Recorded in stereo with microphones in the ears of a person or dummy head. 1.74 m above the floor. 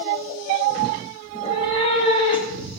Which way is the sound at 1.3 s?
25° left (ahead or behind).